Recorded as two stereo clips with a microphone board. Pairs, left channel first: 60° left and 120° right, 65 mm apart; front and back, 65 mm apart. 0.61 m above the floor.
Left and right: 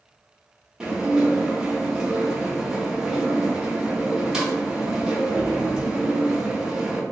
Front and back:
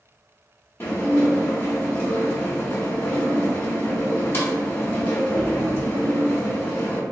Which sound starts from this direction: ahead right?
Dishes clattering, at 0.8 s.